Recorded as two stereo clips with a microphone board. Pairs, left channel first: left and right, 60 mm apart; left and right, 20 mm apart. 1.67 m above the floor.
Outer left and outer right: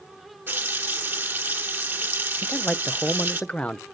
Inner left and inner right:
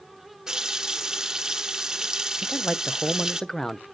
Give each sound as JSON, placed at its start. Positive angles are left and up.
{"t": 0.5, "sound": "a running tap", "side_deg": -35, "distance_m": 1.1}
{"t": 2.4, "sound": "a man speaking", "side_deg": 20, "distance_m": 0.6}